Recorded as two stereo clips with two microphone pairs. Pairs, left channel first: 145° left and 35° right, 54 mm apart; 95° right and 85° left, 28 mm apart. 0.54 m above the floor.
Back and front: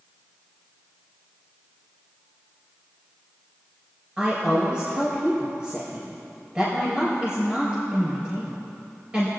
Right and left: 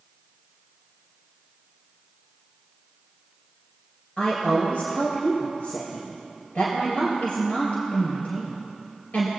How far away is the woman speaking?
About 2.5 m.